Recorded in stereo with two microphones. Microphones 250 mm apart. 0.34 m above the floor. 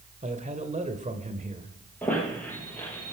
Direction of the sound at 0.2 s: 30° right (ahead or behind).